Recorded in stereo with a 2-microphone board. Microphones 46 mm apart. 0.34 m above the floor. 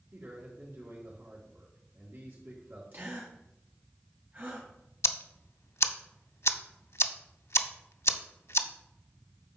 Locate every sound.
0.1 s a man speaking: 60° right (ahead or behind), 3.5 m
2.9 s a gasp: 45° right (ahead or behind), 3.5 m
5.0 s ticking: 85° left, 0.5 m